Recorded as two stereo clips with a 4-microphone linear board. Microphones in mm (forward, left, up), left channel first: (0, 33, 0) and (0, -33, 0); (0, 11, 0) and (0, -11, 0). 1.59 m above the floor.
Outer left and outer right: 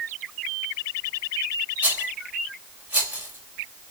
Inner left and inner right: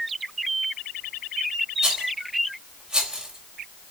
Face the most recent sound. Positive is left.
turn(degrees=-20)  # may be behind; listen again after turning